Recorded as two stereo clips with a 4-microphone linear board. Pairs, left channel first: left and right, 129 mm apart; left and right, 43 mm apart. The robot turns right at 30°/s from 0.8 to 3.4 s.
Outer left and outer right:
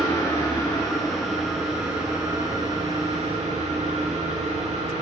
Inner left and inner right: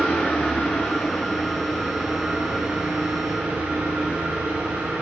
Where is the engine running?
165° left, 5 m; by 5.0 s 120° right, 5 m.